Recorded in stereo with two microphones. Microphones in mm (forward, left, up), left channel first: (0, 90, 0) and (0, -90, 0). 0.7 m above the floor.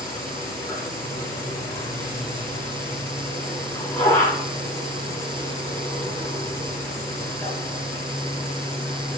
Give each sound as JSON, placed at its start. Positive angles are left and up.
{"t": 0.0, "sound": "an insect", "side_deg": 15, "distance_m": 6.0}